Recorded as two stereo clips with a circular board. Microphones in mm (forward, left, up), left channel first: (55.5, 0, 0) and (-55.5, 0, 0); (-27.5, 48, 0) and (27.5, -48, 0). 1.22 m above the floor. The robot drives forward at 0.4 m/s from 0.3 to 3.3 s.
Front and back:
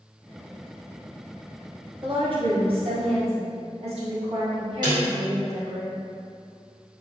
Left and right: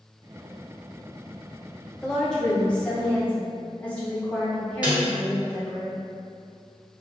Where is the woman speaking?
150° right, 0.9 m; by 5.8 s 165° right, 1.3 m.